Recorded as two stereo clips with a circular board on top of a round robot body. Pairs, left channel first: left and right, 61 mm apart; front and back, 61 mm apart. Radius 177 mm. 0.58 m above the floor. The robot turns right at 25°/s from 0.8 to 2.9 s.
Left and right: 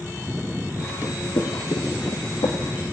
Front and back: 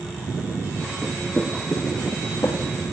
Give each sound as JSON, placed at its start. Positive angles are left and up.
{"t": 1.0, "sound": "footsteps", "azimuth_deg": 125, "distance_m": 0.7}